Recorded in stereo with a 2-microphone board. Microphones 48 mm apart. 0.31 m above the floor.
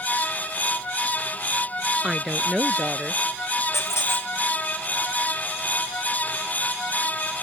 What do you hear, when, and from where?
2.0 s a woman speaking: 15° right (ahead or behind); by 3.2 s 20° right (ahead or behind)
3.7 s a squeak: 75° left (ahead or behind)